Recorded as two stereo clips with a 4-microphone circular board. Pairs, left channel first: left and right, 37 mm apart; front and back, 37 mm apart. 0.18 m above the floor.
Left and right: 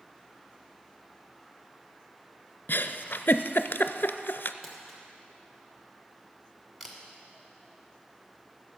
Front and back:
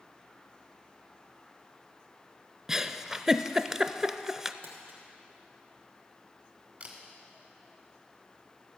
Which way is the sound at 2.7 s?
110° left.